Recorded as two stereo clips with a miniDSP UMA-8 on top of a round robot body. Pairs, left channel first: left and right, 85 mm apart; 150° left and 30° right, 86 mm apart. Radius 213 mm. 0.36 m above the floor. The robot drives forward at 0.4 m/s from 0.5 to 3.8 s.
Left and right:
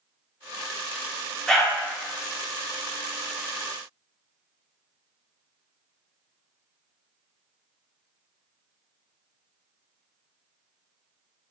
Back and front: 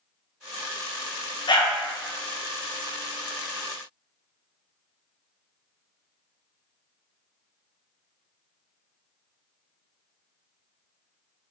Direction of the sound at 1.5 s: 175° left.